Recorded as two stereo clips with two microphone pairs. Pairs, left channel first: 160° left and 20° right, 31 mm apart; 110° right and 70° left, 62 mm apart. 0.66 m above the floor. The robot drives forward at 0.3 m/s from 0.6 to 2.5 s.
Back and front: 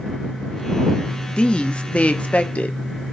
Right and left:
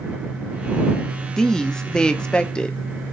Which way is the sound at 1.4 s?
Straight behind.